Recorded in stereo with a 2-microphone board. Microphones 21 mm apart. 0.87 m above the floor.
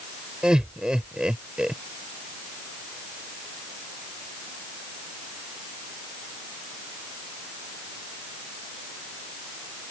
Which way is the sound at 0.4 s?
35° right (ahead or behind).